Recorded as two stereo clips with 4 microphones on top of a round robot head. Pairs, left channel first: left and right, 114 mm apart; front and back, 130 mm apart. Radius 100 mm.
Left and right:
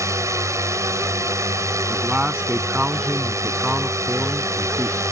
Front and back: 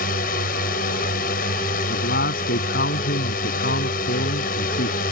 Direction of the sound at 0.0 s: 25° right.